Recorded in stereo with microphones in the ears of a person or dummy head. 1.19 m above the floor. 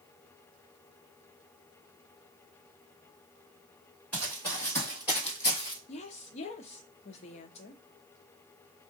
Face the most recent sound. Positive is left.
turn(degrees=40)  # may be behind; listen again after turning